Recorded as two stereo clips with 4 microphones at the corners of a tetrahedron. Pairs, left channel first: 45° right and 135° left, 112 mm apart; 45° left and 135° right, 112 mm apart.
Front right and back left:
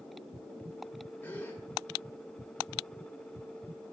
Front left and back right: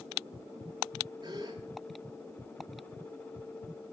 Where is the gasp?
110° right, 1.6 m.